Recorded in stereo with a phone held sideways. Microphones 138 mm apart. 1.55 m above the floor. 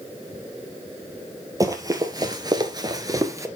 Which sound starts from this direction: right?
Running footsteps, at 1.6 s.